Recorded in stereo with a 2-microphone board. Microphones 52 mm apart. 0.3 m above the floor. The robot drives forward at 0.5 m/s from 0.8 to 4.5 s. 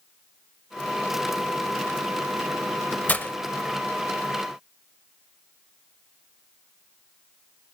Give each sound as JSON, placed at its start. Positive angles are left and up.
{"t": 3.1, "sound": "breaking glass", "side_deg": 30, "distance_m": 0.7}